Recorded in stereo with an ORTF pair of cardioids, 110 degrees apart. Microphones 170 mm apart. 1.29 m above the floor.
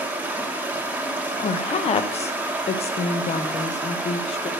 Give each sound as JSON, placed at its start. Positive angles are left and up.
{"t": 0.0, "sound": "running water", "azimuth_deg": -10, "distance_m": 1.2}
{"t": 1.4, "sound": "a woman speaking", "azimuth_deg": 40, "distance_m": 0.8}